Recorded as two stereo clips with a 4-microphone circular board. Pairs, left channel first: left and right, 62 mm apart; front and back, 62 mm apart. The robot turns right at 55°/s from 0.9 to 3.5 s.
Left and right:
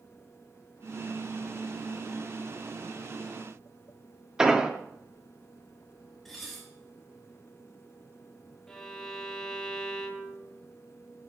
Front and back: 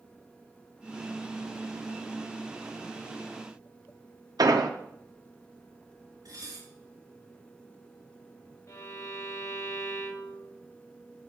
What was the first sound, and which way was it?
An explosion, 170° right.